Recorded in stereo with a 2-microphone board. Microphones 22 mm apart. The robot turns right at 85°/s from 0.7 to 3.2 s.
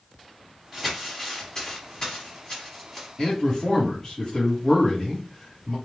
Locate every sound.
0.7 s crumpling: 10° right (ahead or behind), 1.6 m; by 3.1 s centre (ahead or behind), 1.6 m
3.2 s a man speaking: 20° left (ahead or behind), 1.4 m